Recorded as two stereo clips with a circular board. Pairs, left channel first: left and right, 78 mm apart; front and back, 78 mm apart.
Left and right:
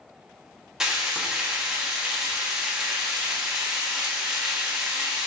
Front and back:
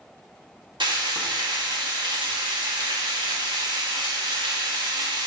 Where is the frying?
175° right, 1.6 m.